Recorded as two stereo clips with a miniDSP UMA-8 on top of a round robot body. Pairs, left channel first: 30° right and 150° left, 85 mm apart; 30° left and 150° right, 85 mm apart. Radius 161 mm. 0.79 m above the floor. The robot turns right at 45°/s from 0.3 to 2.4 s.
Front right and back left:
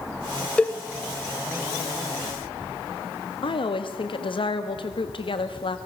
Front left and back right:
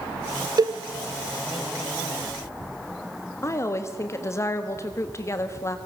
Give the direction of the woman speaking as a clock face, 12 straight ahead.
1 o'clock.